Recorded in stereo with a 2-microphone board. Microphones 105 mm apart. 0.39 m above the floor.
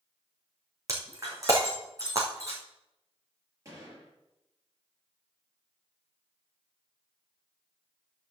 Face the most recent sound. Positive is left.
turn(degrees=-30)  # may be behind; listen again after turning